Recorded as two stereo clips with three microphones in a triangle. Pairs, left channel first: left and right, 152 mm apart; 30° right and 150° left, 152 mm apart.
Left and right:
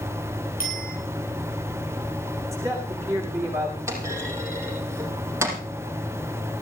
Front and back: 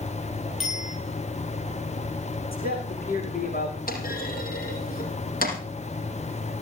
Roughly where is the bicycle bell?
Ahead left.